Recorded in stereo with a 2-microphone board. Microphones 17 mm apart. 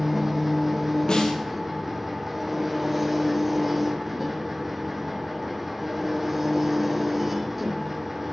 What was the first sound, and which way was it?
An engine running, 15° right (ahead or behind).